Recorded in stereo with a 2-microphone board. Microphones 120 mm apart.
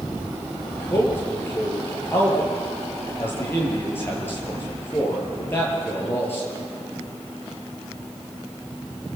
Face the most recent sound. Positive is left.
turn(degrees=20)  # may be behind; listen again after turning